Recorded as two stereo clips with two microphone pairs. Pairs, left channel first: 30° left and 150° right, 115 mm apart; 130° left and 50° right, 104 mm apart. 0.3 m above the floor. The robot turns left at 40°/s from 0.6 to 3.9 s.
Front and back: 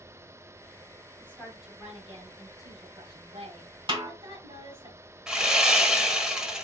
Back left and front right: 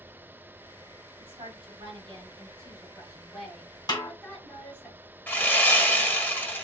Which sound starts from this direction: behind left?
Sawing, at 5.3 s.